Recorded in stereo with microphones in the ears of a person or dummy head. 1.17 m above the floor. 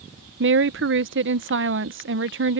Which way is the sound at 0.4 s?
60° right (ahead or behind).